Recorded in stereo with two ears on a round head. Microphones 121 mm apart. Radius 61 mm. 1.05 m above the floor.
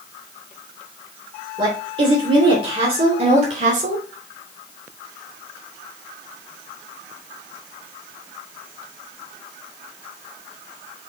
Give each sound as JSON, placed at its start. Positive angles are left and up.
{"t": 1.6, "sound": "a woman speaking", "side_deg": -35, "distance_m": 3.0}